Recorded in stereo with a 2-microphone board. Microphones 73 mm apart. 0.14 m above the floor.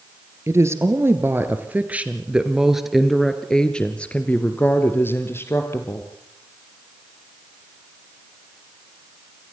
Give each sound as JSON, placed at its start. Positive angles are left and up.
{"t": 0.5, "sound": "a woman speaking", "side_deg": -40, "distance_m": 2.0}